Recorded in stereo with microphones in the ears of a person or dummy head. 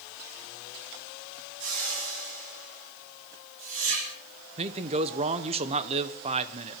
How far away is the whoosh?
About 6 m.